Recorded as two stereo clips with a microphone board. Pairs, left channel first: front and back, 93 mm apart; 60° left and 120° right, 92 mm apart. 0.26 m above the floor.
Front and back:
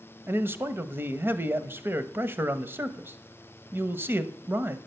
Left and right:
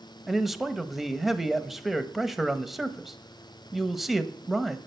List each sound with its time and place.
0.3 s a man speaking: 155° left, 0.9 m